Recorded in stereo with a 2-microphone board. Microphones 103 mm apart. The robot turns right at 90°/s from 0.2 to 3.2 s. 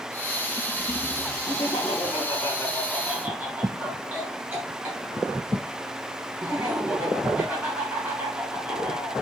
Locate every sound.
1.4 s laughter: 45° left, 2.5 m; by 9.1 s 160° right, 2.5 m